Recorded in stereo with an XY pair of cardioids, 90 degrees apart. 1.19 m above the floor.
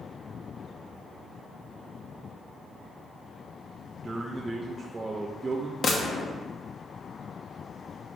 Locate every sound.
4.0 s a man speaking: 25° right, 0.9 m
5.8 s a gunshot: 50° left, 1.1 m